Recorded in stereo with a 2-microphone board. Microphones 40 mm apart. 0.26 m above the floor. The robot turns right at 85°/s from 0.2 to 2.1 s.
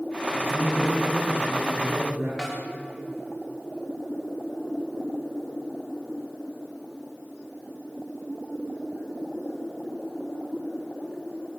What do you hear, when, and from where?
0.3 s a man speaking: 125° left, 9.5 m; by 2.3 s 85° right, 9.5 m
2.4 s a snare drum: centre (ahead or behind), 7.5 m